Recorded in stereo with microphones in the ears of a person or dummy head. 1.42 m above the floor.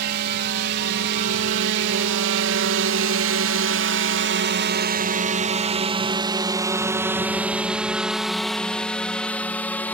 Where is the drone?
55° right (ahead or behind); by 9.9 s 10° left (ahead or behind).